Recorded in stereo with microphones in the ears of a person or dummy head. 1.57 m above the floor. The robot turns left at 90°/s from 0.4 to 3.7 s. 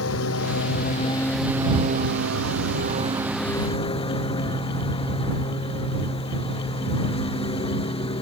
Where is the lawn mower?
90° left; by 8.2 s 155° left.